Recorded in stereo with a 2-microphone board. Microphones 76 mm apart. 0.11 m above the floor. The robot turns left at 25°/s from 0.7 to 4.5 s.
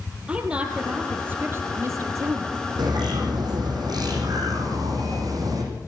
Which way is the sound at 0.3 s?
20° right.